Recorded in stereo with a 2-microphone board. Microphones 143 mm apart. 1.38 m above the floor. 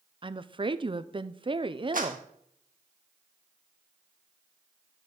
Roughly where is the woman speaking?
Right.